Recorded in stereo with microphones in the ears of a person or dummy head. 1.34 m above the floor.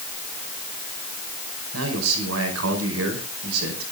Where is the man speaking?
85° right, 5 m.